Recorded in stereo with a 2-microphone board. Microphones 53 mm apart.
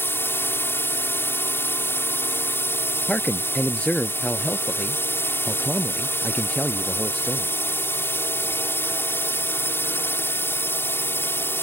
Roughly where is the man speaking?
Left.